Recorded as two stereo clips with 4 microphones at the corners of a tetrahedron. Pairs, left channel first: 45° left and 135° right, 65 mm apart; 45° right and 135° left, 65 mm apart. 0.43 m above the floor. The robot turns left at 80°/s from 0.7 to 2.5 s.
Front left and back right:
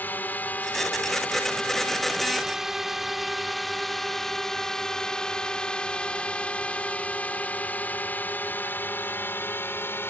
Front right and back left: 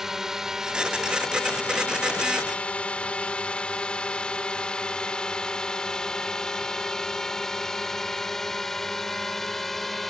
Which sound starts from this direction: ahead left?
A drone, at 0.0 s.